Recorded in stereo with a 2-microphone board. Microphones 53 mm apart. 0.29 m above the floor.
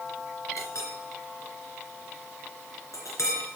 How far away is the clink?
About 3 m.